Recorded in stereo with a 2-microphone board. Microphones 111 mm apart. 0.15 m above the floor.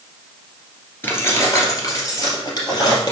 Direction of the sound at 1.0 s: 20° left (ahead or behind).